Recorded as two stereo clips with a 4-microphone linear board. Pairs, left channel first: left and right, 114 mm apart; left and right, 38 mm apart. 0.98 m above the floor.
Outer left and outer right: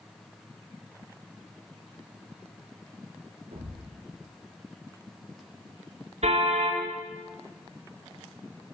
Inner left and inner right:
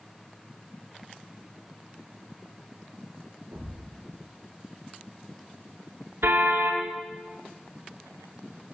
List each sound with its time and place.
3.5 s a thud: 70° right (ahead or behind), 5.5 m
6.2 s a car horn: 75° right (ahead or behind), 7 m